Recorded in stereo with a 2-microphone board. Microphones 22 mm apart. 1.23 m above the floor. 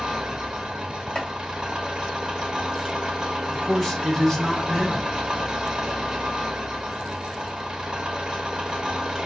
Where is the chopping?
40° left (ahead or behind), 1.2 m.